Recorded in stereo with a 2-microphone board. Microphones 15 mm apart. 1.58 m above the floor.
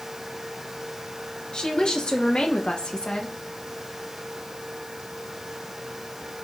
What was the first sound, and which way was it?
A woman speaking, 60° left (ahead or behind).